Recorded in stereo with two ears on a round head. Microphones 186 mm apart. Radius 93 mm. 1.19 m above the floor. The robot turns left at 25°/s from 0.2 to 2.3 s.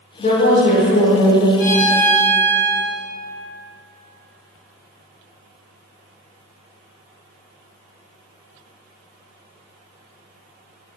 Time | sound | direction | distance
0.2 | a woman speaking | 65° left | 0.6 m
1.6 | a violin | 40° left (ahead or behind) | 0.9 m